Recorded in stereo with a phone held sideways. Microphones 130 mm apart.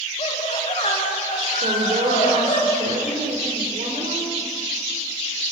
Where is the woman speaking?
70° right (ahead or behind), 3.5 m.